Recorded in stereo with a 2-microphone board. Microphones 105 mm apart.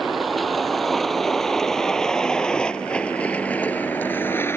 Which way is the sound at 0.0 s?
Centre (ahead or behind).